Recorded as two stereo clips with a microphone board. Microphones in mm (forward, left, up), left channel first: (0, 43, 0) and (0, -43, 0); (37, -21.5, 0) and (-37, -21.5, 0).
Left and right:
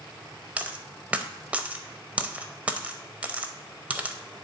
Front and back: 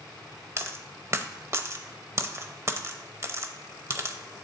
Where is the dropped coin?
155° right, 0.7 m.